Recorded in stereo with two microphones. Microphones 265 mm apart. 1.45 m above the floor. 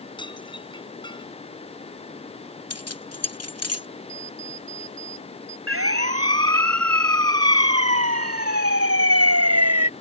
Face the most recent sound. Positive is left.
turn(degrees=-70)  # may be behind; listen again after turning